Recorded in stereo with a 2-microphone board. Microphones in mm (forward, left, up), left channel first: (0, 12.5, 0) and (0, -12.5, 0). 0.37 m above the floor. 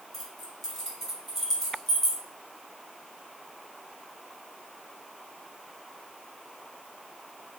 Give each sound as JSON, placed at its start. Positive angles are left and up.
{"t": 0.1, "sound": "keys jangling", "side_deg": 5, "distance_m": 1.7}